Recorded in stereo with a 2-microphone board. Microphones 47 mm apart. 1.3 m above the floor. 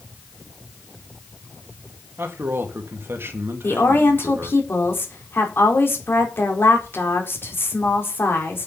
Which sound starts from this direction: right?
A man speaking, at 2.2 s.